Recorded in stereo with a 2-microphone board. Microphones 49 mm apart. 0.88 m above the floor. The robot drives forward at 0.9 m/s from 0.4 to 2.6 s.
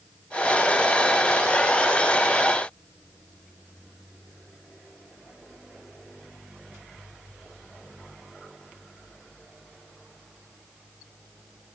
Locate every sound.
Only background noise.